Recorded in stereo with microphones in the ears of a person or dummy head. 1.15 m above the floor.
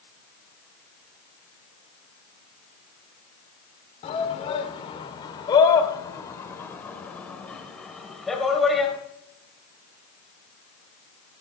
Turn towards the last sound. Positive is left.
turn(degrees=-5)  # may be behind; listen again after turning